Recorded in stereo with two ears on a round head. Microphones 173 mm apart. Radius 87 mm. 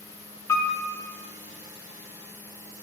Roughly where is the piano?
Centre.